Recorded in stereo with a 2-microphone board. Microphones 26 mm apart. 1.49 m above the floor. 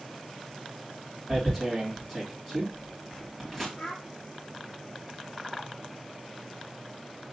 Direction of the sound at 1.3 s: 5° left (ahead or behind).